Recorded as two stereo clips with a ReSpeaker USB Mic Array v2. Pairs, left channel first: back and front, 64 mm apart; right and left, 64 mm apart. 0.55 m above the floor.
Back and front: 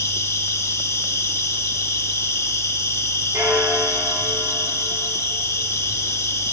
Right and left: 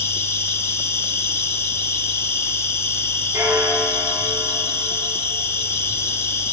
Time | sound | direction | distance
0.0 | an insect | 135° right | 2.5 m
3.3 | a bell | 35° left | 5.5 m